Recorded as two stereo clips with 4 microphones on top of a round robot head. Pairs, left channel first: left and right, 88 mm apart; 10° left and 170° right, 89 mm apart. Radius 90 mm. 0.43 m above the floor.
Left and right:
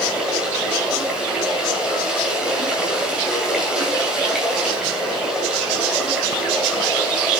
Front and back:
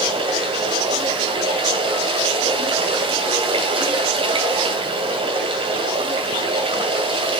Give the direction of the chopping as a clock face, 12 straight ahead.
I don't hear chopping.